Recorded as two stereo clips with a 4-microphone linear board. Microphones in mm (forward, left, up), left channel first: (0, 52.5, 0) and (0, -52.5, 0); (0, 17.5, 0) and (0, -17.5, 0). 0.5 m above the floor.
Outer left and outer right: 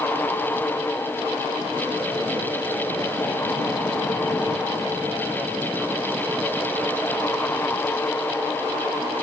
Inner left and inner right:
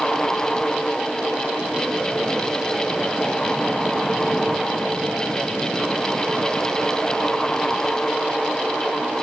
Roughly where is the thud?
No thud in this recording.